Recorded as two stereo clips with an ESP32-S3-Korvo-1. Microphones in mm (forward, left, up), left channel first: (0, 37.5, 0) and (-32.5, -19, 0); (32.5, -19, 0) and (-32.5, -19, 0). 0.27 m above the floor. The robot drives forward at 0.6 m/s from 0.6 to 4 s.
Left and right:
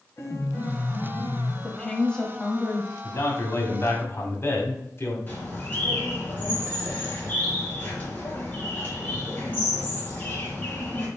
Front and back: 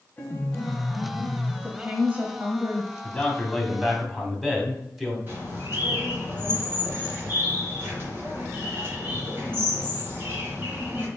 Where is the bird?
125° left, 3.5 m.